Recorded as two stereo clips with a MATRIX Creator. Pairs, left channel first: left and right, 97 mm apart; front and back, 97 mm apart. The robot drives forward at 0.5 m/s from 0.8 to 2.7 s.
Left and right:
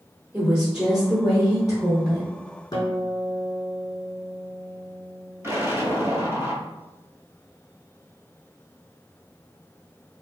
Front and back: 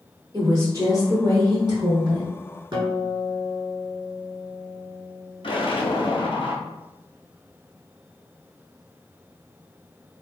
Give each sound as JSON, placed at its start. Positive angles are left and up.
{"t": 0.3, "sound": "a woman speaking", "azimuth_deg": -170, "distance_m": 1.2}
{"t": 2.7, "sound": "a guitar", "azimuth_deg": 140, "distance_m": 1.4}
{"t": 5.4, "sound": "an explosion", "azimuth_deg": -25, "distance_m": 0.7}